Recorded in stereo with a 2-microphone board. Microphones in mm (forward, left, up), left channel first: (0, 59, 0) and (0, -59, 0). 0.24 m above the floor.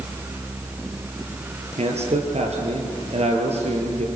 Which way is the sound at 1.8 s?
65° right (ahead or behind).